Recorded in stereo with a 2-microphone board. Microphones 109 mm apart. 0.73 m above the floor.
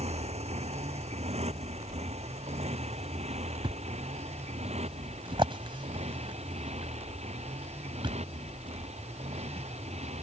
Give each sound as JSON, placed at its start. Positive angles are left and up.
{"t": 0.0, "sound": "a motorcycle", "side_deg": -75}
{"t": 3.6, "sound": "a thud", "side_deg": -50}